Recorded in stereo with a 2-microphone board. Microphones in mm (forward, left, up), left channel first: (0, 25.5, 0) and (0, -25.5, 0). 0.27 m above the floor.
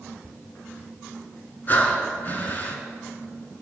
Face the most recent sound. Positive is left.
turn(degrees=35)  # may be behind; listen again after turning